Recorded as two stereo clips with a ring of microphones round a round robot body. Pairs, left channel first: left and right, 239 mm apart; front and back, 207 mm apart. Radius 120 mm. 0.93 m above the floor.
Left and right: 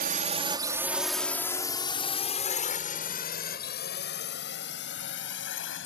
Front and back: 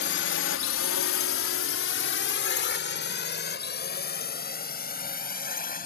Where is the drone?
40° right; by 5.9 s 50° left.